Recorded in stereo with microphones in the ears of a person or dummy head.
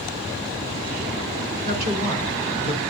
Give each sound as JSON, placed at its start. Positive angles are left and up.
{"t": 1.6, "sound": "a woman speaking", "side_deg": -50, "distance_m": 3.0}